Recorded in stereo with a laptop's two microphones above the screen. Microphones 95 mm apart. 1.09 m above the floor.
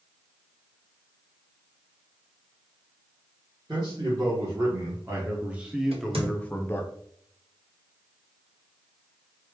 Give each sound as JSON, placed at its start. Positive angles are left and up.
{"t": 3.7, "sound": "a man speaking", "side_deg": -45, "distance_m": 1.4}
{"t": 5.9, "sound": "a crack", "side_deg": -80, "distance_m": 1.3}